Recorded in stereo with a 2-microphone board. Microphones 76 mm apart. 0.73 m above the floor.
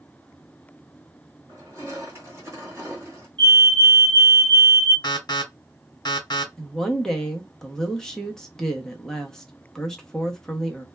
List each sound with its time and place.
1.5 s crushing: 35° right (ahead or behind), 1.4 m
3.4 s a fire alarm: 10° left (ahead or behind), 1.4 m
5.0 s an alarm: 65° left (ahead or behind), 1.0 m
6.6 s a woman speaking: 5° left (ahead or behind), 0.6 m